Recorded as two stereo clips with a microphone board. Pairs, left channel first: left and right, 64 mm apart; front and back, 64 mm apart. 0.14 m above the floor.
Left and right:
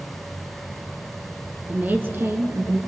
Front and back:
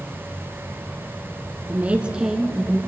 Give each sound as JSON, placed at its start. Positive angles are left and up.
{"t": 1.7, "sound": "a woman speaking", "azimuth_deg": -140, "distance_m": 1.3}